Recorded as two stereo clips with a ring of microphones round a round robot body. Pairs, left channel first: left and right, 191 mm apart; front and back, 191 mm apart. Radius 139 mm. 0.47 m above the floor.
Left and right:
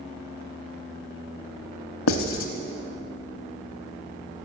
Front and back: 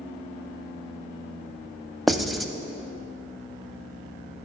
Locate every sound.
2.1 s writing: 90° left, 0.7 m